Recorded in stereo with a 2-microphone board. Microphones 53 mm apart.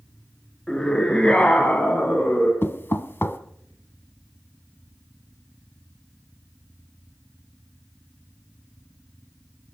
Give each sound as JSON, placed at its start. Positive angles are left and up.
{"t": 0.7, "sound": "a scream", "side_deg": 10, "distance_m": 1.8}
{"t": 2.6, "sound": "knocking", "side_deg": 45, "distance_m": 1.0}